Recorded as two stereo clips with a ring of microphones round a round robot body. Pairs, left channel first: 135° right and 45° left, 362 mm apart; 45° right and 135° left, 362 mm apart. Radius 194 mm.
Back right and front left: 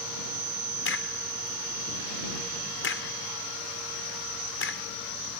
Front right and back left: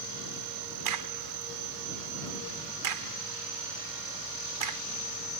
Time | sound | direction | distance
0.8 | a crack | 165° left | ?